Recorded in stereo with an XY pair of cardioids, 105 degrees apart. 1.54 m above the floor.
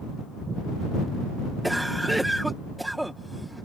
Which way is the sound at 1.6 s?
10° right.